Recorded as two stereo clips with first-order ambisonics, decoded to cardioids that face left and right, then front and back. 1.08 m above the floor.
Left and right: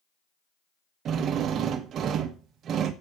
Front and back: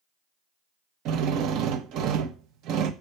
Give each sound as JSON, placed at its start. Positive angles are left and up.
{"t": 1.1, "sound": "a drill", "azimuth_deg": -145, "distance_m": 0.9}